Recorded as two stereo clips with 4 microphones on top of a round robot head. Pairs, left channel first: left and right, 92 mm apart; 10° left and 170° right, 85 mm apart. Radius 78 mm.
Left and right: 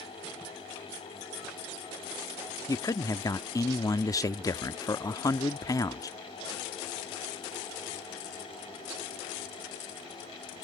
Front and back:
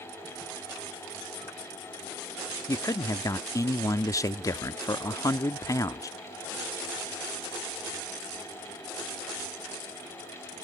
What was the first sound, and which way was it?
A man speaking, 45° left.